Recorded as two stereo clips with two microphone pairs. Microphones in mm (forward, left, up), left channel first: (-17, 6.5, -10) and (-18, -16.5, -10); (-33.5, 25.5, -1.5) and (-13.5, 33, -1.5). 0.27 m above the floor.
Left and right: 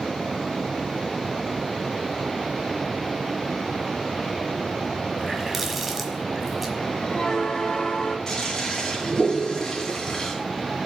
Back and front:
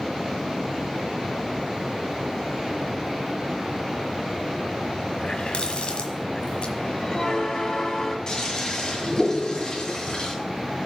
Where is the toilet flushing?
155° left, 2.5 m.